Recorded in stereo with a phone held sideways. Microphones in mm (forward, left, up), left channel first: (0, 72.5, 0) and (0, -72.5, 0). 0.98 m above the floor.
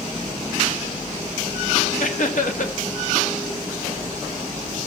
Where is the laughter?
65° left (ahead or behind), 1.3 m.